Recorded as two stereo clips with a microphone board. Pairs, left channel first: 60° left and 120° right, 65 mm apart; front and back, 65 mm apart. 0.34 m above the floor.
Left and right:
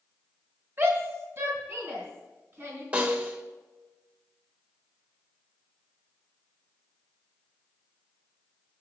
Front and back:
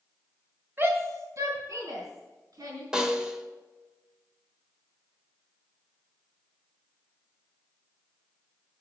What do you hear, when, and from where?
0.8 s a shout: 145° right, 2.0 m; by 2.8 s 175° right, 4.5 m
2.9 s a snare drum: 125° right, 1.1 m